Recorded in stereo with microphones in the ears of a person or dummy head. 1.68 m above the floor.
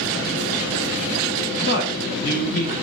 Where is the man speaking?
55° left (ahead or behind), 1.2 m.